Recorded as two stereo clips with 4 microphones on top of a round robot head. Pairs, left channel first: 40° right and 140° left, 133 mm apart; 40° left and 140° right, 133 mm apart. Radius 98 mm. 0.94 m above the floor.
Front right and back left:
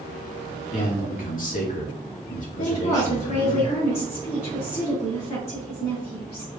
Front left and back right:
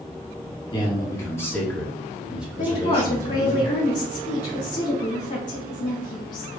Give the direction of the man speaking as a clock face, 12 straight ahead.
12 o'clock.